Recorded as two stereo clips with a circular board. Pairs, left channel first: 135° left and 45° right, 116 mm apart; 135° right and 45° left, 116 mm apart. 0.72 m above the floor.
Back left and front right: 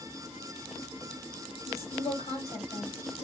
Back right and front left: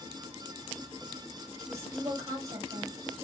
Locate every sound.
1.7 s a woman speaking: 110° left, 3.5 m